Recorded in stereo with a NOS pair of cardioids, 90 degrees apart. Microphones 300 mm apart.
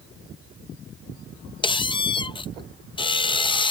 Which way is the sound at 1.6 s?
15° left.